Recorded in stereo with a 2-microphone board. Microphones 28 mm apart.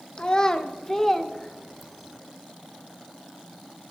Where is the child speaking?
30° left (ahead or behind), 0.9 m; by 2.2 s centre (ahead or behind), 1.5 m.